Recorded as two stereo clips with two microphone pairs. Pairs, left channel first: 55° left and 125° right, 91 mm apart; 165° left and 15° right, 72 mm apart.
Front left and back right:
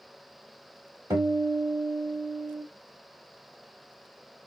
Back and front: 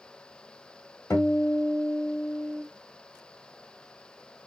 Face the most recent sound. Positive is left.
turn(degrees=-155)